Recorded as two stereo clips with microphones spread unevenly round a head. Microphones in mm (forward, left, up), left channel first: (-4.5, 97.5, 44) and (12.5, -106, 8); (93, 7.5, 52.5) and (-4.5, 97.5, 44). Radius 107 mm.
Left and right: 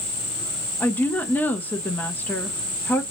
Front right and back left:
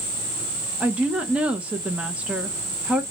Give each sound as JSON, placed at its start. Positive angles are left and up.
{"t": 0.8, "sound": "a woman speaking", "azimuth_deg": -170, "distance_m": 0.7}